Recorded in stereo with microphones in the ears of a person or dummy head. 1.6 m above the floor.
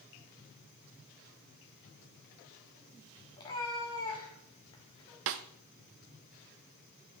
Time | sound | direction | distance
3.4 | a cat meowing | 20° left (ahead or behind) | 1.3 m
5.3 | a snare drum | 60° right (ahead or behind) | 0.6 m